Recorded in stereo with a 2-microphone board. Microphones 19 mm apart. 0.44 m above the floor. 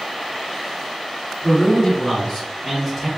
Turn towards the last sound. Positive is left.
turn(degrees=-20)  # may be behind; listen again after turning